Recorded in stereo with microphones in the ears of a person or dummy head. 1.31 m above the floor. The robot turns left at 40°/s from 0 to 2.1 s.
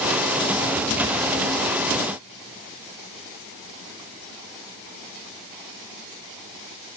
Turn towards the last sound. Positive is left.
No sound to turn to.